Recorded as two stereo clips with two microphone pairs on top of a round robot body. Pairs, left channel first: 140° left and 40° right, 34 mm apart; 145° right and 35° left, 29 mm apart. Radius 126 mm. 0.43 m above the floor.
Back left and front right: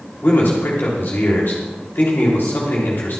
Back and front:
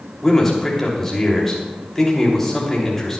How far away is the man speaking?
About 3 m.